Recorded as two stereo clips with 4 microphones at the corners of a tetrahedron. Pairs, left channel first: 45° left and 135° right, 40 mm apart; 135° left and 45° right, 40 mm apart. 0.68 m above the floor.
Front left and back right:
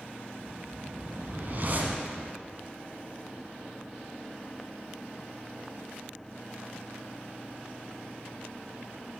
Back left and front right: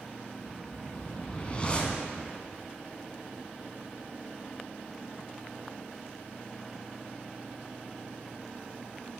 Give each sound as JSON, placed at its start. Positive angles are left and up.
{"t": 0.4, "sound": "a whoosh", "azimuth_deg": -170, "distance_m": 0.9}